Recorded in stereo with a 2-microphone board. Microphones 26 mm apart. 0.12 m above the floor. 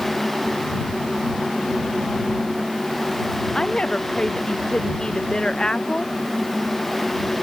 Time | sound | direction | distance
3.5 | a woman speaking | 35° left (ahead or behind) | ?